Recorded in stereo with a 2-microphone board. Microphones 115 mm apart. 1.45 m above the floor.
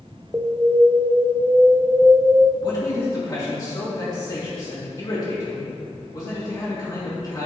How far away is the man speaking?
About 2 m.